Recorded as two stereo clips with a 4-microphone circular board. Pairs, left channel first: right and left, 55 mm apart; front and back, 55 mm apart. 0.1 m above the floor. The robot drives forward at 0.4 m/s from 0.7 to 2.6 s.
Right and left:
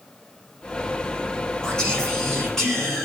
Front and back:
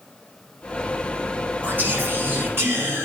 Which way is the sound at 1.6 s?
160° right.